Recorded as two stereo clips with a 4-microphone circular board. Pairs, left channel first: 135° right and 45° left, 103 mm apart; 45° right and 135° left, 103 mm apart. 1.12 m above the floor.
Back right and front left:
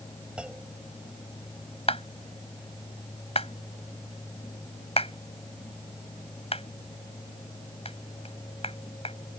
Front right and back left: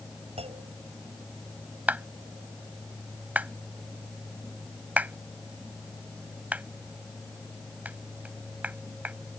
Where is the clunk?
125° left.